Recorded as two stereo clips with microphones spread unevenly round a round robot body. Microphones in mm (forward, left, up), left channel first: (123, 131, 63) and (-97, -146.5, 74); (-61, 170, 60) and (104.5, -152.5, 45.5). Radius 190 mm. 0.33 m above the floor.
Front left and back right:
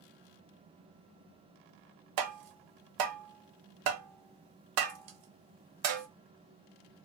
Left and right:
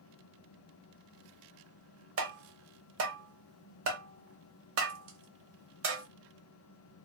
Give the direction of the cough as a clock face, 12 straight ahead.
I don't hear a cough.